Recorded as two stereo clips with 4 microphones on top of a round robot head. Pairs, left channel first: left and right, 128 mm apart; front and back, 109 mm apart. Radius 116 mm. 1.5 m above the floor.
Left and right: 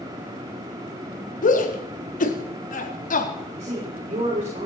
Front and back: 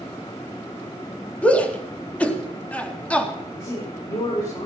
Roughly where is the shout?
Left.